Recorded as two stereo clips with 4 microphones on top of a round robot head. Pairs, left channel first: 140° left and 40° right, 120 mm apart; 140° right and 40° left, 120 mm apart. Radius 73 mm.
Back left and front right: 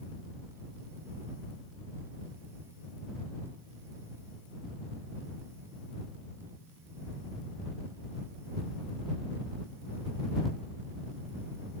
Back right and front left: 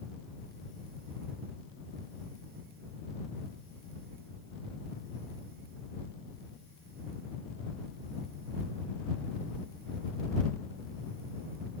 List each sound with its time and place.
Only background noise.